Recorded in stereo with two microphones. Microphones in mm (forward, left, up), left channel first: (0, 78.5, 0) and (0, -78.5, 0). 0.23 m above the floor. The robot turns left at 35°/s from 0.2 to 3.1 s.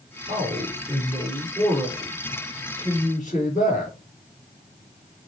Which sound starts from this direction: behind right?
A man speaking, at 0.3 s.